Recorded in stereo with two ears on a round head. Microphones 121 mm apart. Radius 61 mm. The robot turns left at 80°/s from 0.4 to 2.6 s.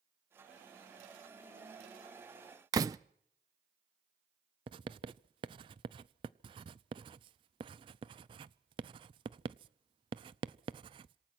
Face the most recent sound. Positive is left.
turn(degrees=-35)  # may be behind; listen again after turning